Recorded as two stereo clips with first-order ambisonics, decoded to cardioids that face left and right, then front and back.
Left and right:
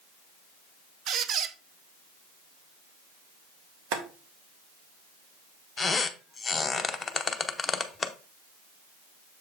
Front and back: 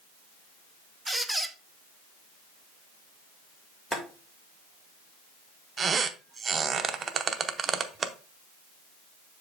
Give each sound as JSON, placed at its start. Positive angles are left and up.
{"t": 1.1, "sound": "a squeak", "azimuth_deg": -90, "distance_m": 0.5}
{"t": 3.9, "sound": "boiling", "azimuth_deg": -80, "distance_m": 1.4}
{"t": 5.8, "sound": "a squeak", "azimuth_deg": 150, "distance_m": 0.5}